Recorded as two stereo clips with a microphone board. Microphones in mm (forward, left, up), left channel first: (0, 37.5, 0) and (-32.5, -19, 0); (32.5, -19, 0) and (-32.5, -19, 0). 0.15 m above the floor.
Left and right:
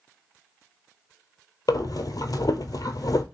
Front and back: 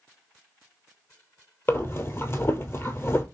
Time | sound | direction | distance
1.7 | breathing | 50° left | 0.6 m